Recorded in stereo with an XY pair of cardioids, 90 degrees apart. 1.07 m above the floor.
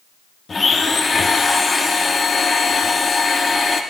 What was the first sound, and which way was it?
A blender, 35° left.